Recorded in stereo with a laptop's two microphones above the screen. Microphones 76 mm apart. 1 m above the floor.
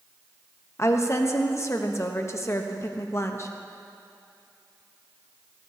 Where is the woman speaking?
35° left (ahead or behind), 0.8 m.